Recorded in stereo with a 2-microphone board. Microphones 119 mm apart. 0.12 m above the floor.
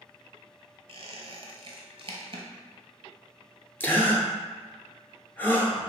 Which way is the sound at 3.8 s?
15° left (ahead or behind).